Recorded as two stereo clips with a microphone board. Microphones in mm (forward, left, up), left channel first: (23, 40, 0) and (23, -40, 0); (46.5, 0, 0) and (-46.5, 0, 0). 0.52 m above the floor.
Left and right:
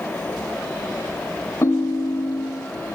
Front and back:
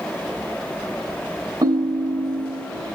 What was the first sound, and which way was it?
A ringtone, 140° left.